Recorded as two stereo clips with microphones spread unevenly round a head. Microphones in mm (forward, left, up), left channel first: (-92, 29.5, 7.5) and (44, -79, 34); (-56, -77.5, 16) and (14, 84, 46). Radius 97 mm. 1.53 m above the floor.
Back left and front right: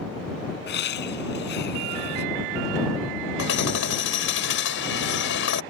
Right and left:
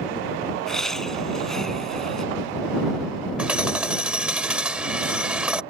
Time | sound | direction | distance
0.7 | laughter | 160° left | ?
3.4 | hammering | 150° left | ?